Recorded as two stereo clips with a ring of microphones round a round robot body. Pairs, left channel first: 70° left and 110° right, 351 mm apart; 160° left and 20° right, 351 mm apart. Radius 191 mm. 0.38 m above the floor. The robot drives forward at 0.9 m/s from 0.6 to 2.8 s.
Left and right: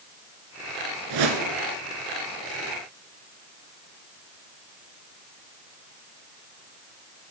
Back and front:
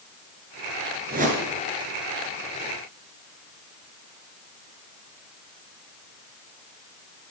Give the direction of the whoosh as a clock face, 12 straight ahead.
3 o'clock.